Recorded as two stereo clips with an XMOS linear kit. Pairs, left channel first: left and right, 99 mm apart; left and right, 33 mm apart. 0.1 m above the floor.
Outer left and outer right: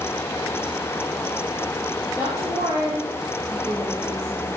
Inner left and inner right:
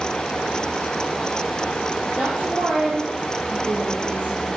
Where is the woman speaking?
25° right (ahead or behind), 2.5 m.